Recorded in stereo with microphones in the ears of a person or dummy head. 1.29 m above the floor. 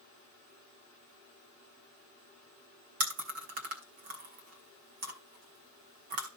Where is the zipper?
No zipper in this recording.